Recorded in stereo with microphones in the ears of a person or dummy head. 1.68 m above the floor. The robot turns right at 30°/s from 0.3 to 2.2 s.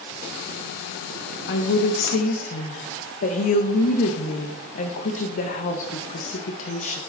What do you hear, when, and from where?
1.5 s a woman speaking: 65° left (ahead or behind), 1.4 m; by 7.0 s 50° left (ahead or behind), 1.4 m